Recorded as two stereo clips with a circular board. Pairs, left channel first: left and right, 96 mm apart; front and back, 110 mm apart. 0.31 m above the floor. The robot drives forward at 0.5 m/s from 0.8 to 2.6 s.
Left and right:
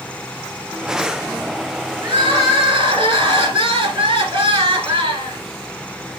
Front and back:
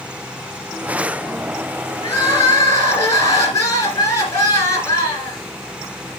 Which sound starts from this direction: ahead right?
Crying, at 2.0 s.